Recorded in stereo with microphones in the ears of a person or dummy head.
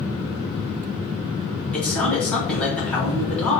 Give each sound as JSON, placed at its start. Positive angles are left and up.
{"t": 1.7, "sound": "a man speaking", "side_deg": 10, "distance_m": 1.8}